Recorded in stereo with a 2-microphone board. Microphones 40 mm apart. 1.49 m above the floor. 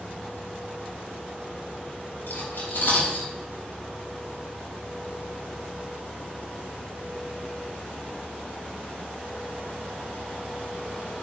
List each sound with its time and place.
2.3 s cutlery clinking: 60° left (ahead or behind), 5 m